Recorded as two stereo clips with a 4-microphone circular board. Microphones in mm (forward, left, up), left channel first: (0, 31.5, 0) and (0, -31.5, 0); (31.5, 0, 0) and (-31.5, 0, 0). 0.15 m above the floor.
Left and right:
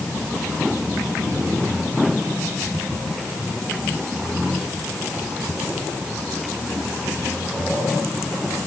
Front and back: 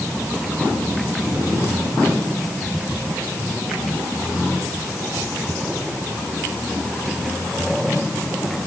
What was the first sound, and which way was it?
Only background noise.